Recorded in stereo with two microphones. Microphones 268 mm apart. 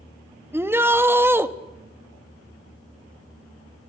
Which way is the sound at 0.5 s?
10° right (ahead or behind).